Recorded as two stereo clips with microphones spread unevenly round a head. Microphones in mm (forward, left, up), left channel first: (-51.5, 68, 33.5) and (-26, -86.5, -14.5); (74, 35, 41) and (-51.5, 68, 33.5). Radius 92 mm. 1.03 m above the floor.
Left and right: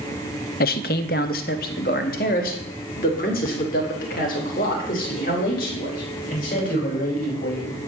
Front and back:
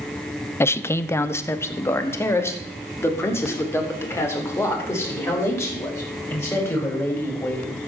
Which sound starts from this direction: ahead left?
A man speaking, at 0.6 s.